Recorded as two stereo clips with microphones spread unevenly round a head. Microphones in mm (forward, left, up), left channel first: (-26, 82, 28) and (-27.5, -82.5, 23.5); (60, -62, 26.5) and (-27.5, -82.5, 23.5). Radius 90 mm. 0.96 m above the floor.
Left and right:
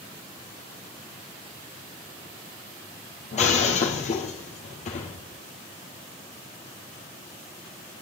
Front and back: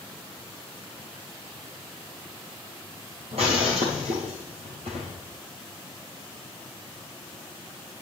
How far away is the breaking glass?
About 2.5 m.